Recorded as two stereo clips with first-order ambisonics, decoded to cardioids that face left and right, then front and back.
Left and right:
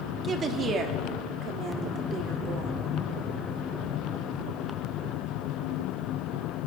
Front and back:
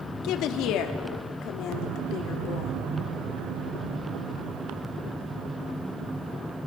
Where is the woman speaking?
25° right, 1.2 m; by 2.7 s 40° right, 2.5 m.